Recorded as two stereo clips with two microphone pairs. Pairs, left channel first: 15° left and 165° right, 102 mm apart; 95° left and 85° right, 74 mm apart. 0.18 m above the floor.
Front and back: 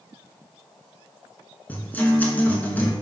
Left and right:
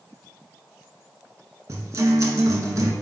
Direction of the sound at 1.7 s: 55° right.